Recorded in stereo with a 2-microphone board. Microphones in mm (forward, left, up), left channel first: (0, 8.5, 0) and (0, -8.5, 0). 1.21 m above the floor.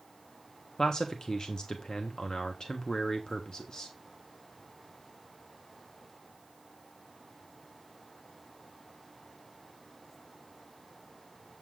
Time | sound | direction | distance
0.8 | a man speaking | 50° left (ahead or behind) | 1.3 m